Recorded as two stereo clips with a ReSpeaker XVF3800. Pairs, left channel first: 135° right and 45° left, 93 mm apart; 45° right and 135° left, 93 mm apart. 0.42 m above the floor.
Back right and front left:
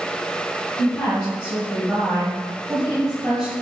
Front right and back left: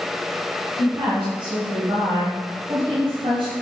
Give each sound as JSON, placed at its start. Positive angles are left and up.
{"t": 0.8, "sound": "a woman speaking", "azimuth_deg": 160, "distance_m": 3.5}